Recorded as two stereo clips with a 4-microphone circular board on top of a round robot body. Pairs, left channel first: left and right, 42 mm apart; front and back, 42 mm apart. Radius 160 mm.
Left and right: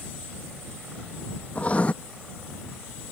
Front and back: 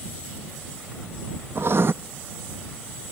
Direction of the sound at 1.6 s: 150° left.